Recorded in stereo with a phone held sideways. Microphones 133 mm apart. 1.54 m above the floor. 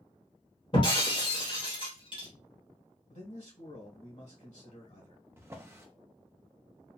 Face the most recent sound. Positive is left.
turn(degrees=-20)  # may be behind; listen again after turning